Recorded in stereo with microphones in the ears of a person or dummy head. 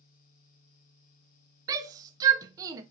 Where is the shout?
15° right (ahead or behind), 0.5 m.